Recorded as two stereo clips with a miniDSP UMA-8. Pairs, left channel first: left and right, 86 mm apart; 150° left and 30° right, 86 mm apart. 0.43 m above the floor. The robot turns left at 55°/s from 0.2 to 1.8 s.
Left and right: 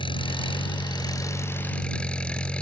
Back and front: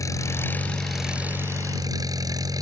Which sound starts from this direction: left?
An engine running, at 0.0 s.